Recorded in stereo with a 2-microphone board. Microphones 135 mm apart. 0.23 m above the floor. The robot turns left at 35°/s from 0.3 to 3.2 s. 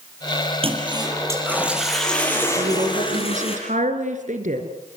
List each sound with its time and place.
0.6 s a toilet flushing: 135° right, 6.5 m; by 3.6 s 135° left, 6.5 m
2.6 s a woman speaking: 55° right (ahead or behind), 3.5 m; by 4.7 s 70° right (ahead or behind), 3.5 m